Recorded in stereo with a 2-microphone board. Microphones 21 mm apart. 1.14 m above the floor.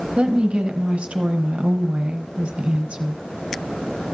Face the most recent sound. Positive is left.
turn(degrees=-80)